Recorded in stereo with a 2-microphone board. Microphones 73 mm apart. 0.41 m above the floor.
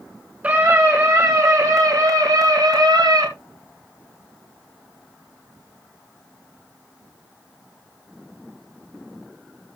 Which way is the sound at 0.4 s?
20° right (ahead or behind).